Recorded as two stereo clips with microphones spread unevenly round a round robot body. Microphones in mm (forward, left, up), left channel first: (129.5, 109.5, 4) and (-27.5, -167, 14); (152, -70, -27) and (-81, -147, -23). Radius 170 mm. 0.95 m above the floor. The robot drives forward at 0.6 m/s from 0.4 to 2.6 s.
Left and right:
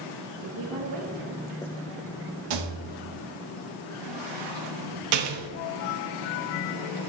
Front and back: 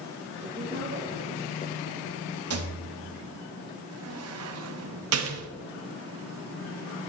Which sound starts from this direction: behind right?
A rattle, at 2.5 s.